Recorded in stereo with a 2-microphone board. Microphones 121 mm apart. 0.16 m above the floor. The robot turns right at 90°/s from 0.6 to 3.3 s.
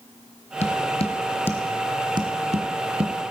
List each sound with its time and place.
0.6 s tapping: 70° left (ahead or behind), 1.3 m; by 3.3 s 30° right (ahead or behind), 1.3 m